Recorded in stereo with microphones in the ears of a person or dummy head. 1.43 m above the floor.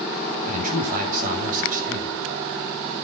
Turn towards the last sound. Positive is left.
turn(degrees=-50)  # may be behind; listen again after turning